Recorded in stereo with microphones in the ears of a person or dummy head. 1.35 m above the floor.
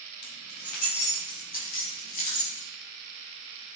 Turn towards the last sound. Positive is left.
turn(degrees=50)  # may be behind; listen again after turning